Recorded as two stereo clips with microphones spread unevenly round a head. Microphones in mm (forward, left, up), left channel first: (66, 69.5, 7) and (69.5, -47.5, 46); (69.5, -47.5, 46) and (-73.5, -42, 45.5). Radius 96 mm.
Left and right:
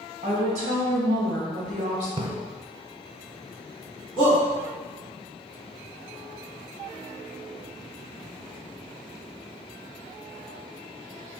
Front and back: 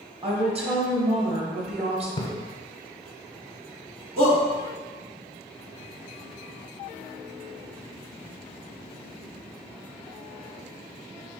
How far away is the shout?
About 1.4 m.